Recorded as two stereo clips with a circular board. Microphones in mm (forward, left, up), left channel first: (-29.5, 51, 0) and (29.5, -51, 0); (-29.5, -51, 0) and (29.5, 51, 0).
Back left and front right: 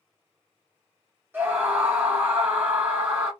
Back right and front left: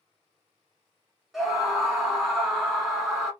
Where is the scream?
25° right, 1.1 m.